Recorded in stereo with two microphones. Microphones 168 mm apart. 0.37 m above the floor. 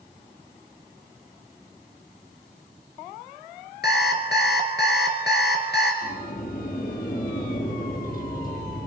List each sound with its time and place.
3.8 s an alarm clock: 80° left, 3 m
6.0 s a sliding door: 55° left (ahead or behind), 4 m